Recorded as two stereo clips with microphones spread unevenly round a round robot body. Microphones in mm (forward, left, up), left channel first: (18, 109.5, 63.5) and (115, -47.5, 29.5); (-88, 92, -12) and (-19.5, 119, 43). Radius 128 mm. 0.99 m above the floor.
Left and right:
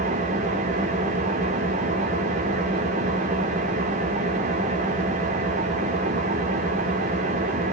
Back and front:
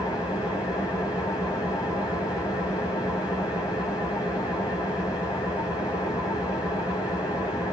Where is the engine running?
115° right, 3 m.